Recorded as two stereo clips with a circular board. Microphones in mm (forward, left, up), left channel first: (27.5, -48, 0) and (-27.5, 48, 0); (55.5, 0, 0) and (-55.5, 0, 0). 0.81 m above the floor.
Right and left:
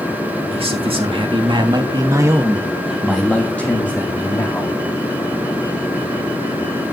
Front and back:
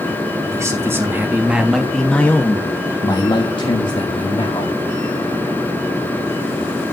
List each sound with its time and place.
0.5 s a man speaking: 120° left, 2 m; by 4.8 s 5° right, 2.5 m